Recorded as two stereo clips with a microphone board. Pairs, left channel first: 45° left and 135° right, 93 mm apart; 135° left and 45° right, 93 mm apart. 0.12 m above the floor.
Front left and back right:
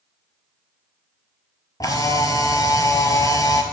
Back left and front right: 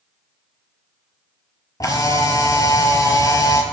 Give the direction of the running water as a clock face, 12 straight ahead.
I don't hear running water.